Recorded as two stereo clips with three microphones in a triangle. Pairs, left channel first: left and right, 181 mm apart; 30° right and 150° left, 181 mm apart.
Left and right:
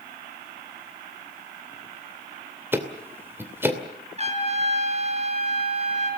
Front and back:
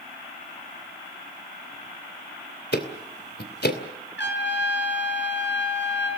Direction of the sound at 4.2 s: 35° right.